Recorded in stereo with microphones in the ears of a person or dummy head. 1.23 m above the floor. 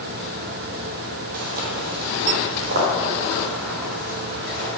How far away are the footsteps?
About 1.8 m.